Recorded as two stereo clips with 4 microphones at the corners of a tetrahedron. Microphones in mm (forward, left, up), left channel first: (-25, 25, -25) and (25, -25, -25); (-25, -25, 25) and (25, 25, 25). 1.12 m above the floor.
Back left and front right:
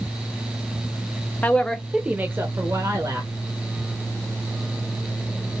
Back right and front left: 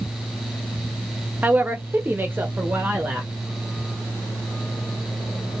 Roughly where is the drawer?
I don't hear a drawer.